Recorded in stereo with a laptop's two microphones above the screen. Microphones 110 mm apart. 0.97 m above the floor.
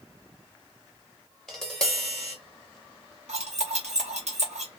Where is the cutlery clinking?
85° right, 1.1 m.